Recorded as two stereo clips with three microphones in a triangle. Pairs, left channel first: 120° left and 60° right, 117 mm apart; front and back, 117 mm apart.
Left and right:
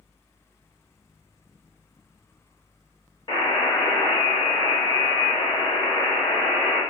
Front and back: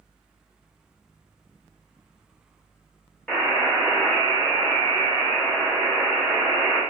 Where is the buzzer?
75° left, 0.8 m.